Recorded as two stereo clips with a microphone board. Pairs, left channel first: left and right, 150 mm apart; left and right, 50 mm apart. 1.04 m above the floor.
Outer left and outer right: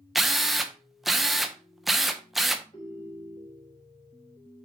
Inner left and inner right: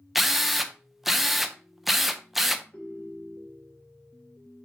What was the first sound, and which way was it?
A drill, centre (ahead or behind).